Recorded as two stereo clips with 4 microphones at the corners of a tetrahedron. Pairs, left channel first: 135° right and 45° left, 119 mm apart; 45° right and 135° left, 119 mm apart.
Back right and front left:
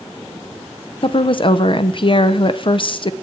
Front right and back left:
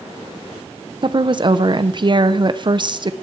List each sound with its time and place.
1.0 s a woman speaking: 175° right, 0.6 m